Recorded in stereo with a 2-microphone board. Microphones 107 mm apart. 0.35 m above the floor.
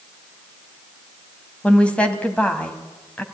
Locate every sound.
1.6 s a woman speaking: 10° left (ahead or behind), 2 m